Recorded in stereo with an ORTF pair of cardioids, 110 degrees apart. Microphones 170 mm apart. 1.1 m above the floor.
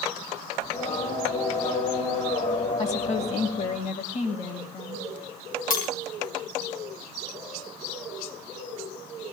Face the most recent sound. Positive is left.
turn(degrees=60)